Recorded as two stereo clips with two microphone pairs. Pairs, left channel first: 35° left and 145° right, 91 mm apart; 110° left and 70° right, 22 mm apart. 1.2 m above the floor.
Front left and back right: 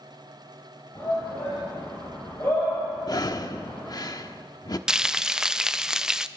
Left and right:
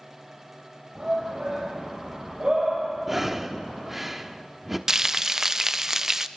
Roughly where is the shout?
Ahead right.